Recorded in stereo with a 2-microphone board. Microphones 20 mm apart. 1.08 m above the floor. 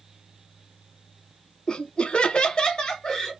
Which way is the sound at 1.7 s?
50° left (ahead or behind).